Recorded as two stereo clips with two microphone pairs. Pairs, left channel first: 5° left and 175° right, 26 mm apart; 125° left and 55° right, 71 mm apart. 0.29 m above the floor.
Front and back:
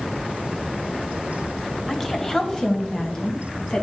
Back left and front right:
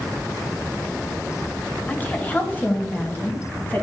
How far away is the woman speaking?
About 1.0 m.